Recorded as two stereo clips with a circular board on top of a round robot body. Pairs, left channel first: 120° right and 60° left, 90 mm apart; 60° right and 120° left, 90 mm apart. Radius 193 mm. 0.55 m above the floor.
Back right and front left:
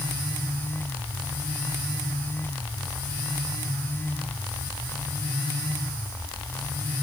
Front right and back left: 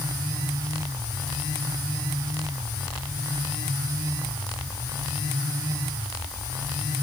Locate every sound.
Only background noise.